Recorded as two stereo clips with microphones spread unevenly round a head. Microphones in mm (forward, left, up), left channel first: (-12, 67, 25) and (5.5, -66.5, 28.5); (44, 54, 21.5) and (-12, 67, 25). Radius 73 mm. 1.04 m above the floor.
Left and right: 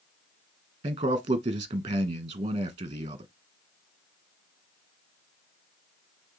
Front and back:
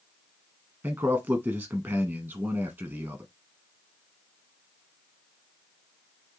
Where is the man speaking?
135° right, 1.0 m.